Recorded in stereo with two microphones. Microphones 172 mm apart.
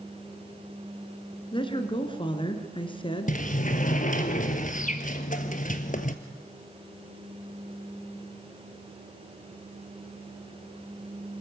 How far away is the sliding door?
About 1.2 m.